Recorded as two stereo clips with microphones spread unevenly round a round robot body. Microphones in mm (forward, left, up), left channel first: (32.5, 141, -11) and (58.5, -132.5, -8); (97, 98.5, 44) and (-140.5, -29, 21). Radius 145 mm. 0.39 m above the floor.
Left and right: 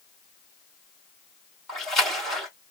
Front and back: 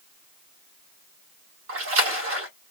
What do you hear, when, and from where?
1.7 s a splash: 175° right, 2.5 m